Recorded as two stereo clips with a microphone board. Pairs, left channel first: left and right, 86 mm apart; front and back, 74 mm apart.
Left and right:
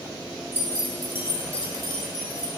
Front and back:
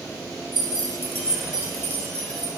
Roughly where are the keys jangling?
Ahead left.